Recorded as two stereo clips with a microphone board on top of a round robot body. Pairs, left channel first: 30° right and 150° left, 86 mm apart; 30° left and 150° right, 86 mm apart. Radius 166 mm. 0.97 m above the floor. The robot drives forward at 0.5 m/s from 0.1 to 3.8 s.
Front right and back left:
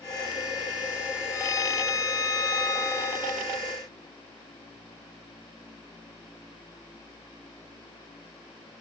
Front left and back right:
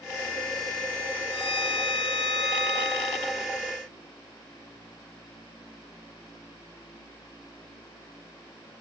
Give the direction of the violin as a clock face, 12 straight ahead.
11 o'clock.